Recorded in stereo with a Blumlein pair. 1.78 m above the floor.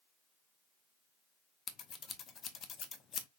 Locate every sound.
1.7 s scissors: 25° left, 0.6 m